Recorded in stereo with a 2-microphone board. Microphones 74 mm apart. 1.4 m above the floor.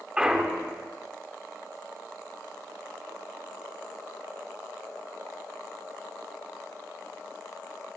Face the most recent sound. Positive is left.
turn(degrees=-10)  # may be behind; listen again after turning